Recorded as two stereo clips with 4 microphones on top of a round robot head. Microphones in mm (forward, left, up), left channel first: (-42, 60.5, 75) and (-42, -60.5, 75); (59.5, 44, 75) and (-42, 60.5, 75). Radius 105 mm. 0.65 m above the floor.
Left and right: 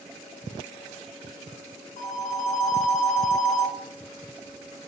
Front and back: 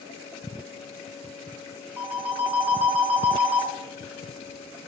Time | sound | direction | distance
2.0 | a phone ringing | 95° left | 0.9 m